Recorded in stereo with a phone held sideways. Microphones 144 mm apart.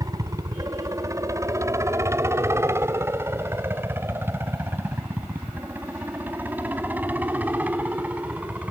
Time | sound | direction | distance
0.0 | a helicopter | 25° right (ahead or behind) | ?